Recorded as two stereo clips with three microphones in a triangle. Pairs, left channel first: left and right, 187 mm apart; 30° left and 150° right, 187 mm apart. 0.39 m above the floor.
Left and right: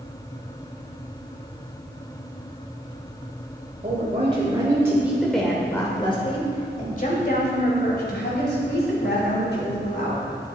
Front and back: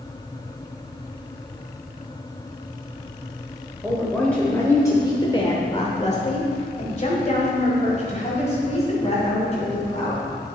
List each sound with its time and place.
3.8 s a woman speaking: 60° right, 1.6 m; by 10.3 s 85° left, 3.5 m